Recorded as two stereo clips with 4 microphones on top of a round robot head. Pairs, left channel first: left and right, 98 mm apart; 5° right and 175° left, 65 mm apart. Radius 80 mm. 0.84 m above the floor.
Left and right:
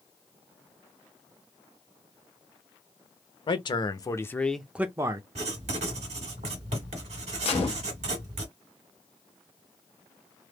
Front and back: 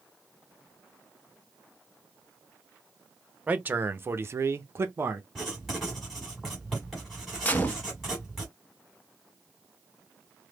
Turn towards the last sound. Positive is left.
turn(degrees=60)